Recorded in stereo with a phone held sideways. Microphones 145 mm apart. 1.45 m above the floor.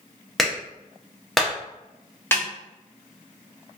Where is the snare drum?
15° left (ahead or behind), 1.0 m.